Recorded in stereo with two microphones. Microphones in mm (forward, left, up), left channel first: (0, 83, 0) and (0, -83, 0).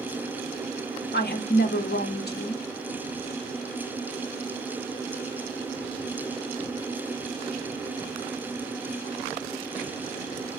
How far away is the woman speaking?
About 0.7 m.